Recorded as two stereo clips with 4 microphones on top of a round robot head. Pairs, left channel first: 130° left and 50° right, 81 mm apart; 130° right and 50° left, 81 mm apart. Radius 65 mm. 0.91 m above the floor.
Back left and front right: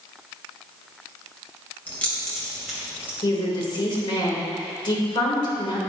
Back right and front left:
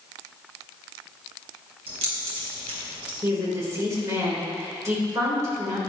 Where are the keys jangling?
60° left, 3 m; by 3.1 s 25° left, 3 m.